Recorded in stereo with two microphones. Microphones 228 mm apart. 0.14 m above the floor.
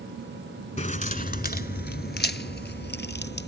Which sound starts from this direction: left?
Keys jangling, at 0.8 s.